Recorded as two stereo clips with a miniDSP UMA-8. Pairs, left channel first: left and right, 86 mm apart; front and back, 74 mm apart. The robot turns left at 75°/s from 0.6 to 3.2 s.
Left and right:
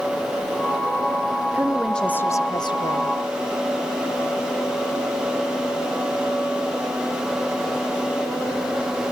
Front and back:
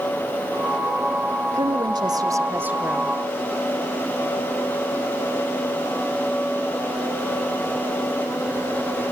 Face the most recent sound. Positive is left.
turn(degrees=75)